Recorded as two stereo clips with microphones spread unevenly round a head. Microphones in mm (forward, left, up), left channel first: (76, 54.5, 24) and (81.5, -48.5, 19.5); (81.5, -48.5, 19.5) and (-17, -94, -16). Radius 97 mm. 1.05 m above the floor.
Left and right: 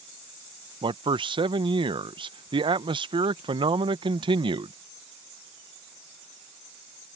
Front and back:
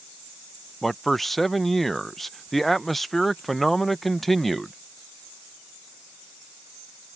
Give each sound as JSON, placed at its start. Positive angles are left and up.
{"t": 0.8, "sound": "a man speaking", "azimuth_deg": -75}